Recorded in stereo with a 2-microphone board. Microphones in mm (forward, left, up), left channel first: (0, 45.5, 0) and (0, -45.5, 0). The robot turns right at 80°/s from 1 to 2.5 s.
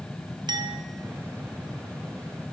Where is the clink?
50° right (ahead or behind), 1.1 m.